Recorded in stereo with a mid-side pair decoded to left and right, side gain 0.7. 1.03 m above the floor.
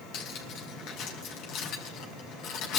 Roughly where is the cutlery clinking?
Ahead left.